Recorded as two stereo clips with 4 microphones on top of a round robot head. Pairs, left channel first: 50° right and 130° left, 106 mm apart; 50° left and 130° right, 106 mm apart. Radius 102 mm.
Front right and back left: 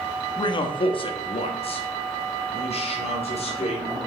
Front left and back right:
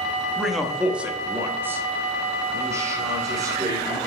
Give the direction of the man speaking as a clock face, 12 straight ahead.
1 o'clock.